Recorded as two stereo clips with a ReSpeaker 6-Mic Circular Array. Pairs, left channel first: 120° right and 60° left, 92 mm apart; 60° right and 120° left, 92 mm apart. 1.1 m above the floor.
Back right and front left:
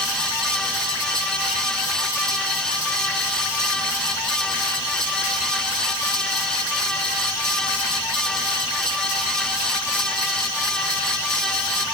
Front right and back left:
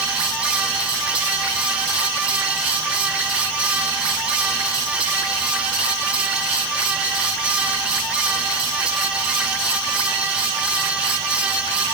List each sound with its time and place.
Only background noise.